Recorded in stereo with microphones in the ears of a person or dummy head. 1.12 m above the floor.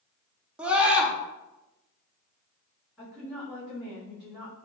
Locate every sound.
0.6 s a scream: 10° right (ahead or behind), 0.7 m
3.0 s a woman speaking: 5° right (ahead or behind), 1.7 m